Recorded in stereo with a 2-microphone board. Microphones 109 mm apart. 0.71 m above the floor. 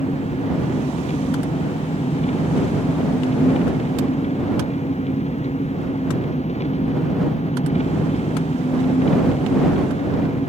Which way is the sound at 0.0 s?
75° left (ahead or behind).